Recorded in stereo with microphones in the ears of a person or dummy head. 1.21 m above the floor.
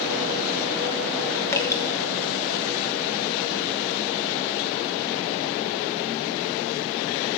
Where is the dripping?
15° left (ahead or behind), 1.4 m.